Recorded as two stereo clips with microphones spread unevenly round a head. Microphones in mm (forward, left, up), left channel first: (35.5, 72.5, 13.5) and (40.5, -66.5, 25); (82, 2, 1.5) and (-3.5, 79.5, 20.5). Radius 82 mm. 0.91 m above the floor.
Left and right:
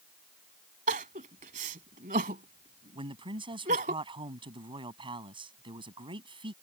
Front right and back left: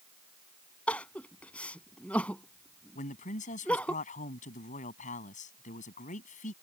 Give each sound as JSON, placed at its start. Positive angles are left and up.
{"t": 0.9, "sound": "crying", "azimuth_deg": -130}
{"t": 3.0, "sound": "a man speaking", "azimuth_deg": -35}